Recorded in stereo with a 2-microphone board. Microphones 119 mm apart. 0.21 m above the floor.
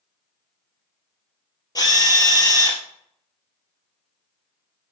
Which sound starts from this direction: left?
A drill, at 1.8 s.